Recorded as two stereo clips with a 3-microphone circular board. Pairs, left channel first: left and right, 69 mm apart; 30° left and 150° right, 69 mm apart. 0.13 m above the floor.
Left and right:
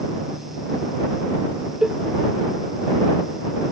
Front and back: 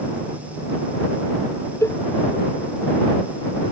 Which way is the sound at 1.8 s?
10° right.